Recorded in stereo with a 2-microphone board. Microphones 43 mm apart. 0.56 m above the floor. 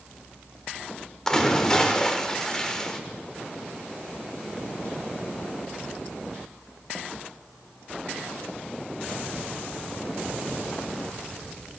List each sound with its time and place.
1.3 s a splash: 15° left (ahead or behind), 0.7 m